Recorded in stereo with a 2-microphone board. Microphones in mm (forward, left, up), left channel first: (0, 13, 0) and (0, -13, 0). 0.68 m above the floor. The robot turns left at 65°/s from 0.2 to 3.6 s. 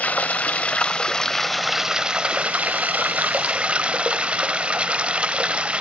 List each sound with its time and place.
0.0 s running water: 90° left, 0.9 m; by 5.8 s 130° right, 0.9 m